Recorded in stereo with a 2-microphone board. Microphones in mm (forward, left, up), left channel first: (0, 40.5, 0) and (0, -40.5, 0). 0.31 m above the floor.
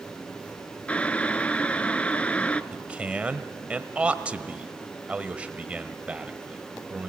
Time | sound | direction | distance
0.9 | boiling | 15° left (ahead or behind) | 0.6 m
2.7 | a man speaking | 15° right (ahead or behind) | 1.1 m